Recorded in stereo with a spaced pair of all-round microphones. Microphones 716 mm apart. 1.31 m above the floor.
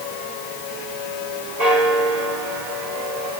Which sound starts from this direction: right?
A bell, at 1.6 s.